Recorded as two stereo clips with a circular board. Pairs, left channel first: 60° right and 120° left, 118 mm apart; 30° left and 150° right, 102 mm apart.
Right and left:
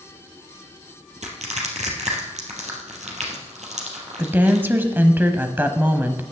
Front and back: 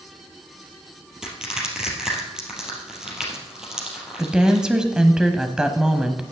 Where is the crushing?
125° left, 3 m.